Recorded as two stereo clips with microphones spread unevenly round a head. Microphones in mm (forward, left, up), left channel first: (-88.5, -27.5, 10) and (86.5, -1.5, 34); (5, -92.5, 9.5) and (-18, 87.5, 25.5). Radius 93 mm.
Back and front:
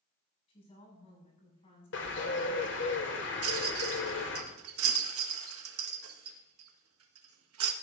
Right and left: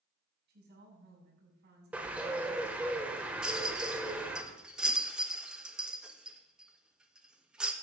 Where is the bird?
175° left, 1.4 m.